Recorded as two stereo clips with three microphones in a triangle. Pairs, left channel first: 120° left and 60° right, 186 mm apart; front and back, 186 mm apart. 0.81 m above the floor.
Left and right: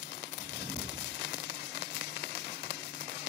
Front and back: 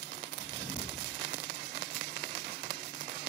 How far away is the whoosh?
About 1.2 m.